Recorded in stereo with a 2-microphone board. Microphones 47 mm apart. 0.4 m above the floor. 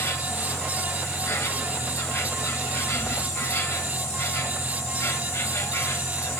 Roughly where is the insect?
Left.